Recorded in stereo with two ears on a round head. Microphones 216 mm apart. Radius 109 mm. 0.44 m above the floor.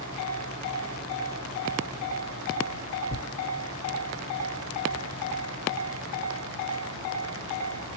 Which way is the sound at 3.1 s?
30° left (ahead or behind).